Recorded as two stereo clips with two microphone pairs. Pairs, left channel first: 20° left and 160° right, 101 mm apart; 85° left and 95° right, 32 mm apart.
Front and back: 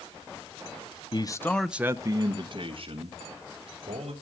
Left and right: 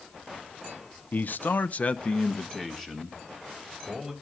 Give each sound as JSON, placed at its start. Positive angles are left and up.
{"t": 1.1, "sound": "a man speaking", "azimuth_deg": 60, "distance_m": 0.9}